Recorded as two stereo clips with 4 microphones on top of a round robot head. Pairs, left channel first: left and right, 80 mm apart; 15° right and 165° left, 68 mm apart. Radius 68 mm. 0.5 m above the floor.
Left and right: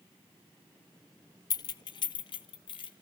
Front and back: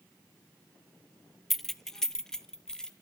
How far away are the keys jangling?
About 0.6 m.